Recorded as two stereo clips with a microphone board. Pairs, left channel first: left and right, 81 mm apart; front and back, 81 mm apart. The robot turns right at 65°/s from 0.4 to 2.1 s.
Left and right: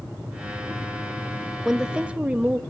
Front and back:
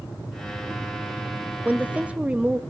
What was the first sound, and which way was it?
A woman speaking, 170° right.